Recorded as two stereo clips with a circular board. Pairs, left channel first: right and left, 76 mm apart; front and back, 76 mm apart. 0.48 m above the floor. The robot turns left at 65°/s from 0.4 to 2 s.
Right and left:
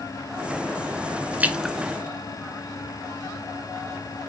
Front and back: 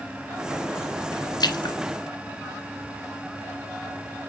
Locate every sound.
1.4 s a splash: 20° left, 1.0 m; by 1.8 s straight ahead, 1.0 m